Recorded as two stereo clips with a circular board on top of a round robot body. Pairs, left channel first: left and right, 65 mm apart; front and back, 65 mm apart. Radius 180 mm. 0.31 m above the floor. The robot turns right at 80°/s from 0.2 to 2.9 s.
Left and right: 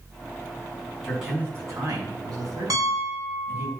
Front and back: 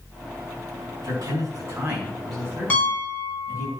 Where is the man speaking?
175° left, 5.5 m; by 3.7 s 40° right, 5.5 m.